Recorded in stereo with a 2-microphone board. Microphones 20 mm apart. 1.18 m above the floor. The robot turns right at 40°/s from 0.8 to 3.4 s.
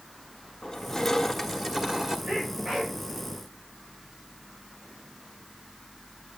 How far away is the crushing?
About 1.4 m.